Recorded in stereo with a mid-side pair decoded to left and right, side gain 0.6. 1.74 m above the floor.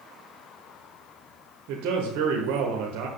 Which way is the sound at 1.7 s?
70° right.